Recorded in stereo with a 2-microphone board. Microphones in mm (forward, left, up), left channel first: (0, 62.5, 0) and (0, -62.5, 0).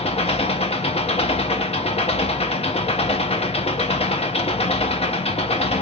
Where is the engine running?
50° left (ahead or behind), 0.9 m.